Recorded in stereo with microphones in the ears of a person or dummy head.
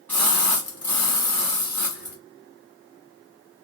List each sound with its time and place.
0.1 s a splash: 10° left (ahead or behind), 1.2 m